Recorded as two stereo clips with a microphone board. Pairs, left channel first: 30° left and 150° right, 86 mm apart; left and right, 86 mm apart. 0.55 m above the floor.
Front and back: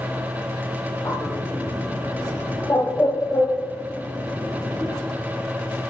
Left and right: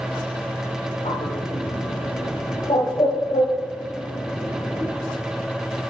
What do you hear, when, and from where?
1.1 s a bird: 90° left, 1.6 m